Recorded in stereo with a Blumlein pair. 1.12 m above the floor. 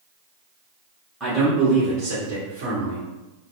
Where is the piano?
No piano in this recording.